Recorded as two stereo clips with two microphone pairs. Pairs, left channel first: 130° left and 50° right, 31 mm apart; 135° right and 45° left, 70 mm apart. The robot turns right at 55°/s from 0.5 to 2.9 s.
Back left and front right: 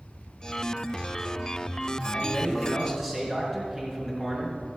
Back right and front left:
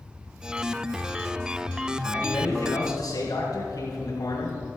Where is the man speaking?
165° right, 4.5 m; by 4.6 s 125° right, 4.5 m.